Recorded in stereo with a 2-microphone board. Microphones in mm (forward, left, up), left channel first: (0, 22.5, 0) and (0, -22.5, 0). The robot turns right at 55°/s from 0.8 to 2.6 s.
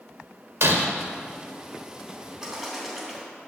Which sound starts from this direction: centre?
A bird, at 2.4 s.